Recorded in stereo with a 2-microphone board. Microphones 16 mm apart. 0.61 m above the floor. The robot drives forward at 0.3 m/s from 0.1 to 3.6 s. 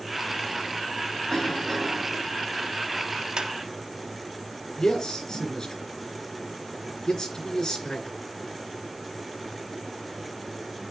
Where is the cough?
20° left (ahead or behind), 4.5 m; by 2.2 s 15° left (ahead or behind), 5 m.